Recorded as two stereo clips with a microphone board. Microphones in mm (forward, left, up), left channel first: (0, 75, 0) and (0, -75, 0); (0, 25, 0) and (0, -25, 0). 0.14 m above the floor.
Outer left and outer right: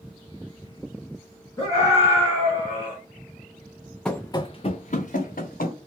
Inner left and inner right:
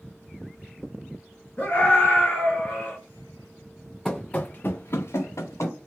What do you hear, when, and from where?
1.6 s a scream: 20° left (ahead or behind), 1.4 m; by 3.0 s 25° left (ahead or behind), 1.5 m
4.0 s running footsteps: 5° left (ahead or behind), 0.5 m; by 5.8 s 80° left, 1.2 m